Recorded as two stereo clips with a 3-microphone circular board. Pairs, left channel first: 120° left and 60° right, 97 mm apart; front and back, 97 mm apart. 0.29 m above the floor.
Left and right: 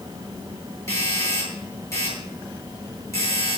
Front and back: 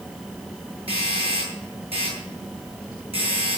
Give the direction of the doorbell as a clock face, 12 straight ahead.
6 o'clock.